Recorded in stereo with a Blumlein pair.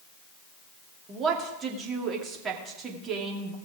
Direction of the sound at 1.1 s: 25° right.